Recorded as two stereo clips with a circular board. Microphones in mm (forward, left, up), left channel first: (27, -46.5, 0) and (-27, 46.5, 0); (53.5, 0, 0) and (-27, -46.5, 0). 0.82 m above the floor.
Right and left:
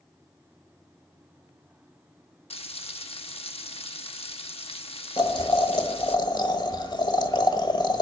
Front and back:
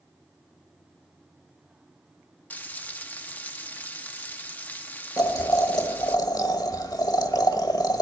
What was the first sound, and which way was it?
Frying, 40° right.